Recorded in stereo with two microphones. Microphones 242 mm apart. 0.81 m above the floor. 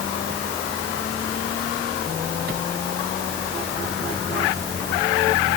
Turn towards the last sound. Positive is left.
No sound to turn to.